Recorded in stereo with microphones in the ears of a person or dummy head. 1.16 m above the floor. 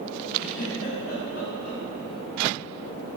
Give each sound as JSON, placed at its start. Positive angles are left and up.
{"t": 0.4, "sound": "a giggle", "side_deg": 55, "distance_m": 6.0}